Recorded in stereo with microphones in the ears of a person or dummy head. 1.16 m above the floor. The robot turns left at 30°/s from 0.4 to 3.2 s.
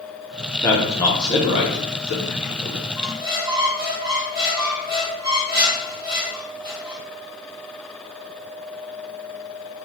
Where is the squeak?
15° right (ahead or behind), 1.4 m; by 7.0 s 20° right (ahead or behind), 1.4 m.